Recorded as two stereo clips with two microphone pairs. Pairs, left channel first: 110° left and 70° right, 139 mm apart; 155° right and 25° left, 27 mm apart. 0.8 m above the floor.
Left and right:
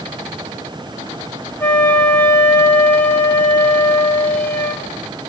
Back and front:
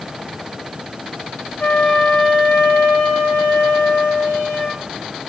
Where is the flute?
175° right, 2 m.